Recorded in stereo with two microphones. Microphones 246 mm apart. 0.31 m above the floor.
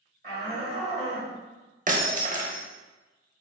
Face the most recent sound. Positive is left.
turn(degrees=-35)  # may be behind; listen again after turning